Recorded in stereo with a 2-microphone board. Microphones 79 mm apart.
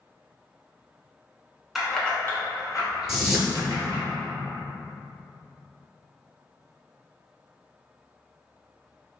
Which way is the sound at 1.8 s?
5° right (ahead or behind).